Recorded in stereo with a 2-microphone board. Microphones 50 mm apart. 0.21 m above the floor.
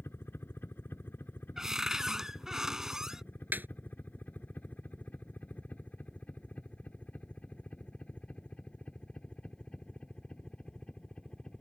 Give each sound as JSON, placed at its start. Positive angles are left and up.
{"t": 0.0, "sound": "a helicopter", "side_deg": 45}
{"t": 1.6, "sound": "a cupboard door", "side_deg": -10}
{"t": 3.5, "sound": "a snare drum", "side_deg": -40}